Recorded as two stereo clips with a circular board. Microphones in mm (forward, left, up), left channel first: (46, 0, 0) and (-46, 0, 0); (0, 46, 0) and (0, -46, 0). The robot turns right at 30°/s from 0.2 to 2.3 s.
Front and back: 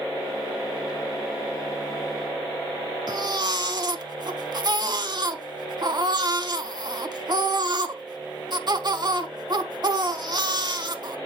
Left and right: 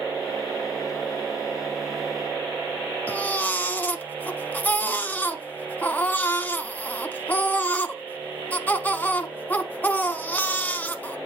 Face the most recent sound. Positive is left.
turn(degrees=155)